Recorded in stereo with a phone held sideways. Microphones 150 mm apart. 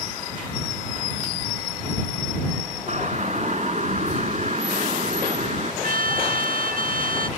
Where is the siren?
50° right (ahead or behind).